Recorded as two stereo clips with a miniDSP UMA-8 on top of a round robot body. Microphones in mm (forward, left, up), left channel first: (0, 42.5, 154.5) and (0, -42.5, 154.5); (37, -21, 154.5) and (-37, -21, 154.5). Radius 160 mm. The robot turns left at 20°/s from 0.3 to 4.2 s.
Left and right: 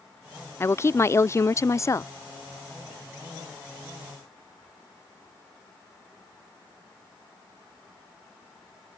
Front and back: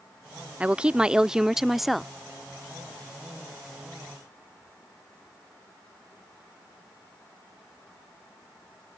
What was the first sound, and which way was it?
A woman speaking, 120° left.